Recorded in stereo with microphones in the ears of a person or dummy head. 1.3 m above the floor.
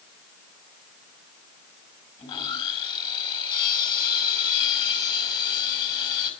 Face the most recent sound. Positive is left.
turn(degrees=25)  # may be behind; listen again after turning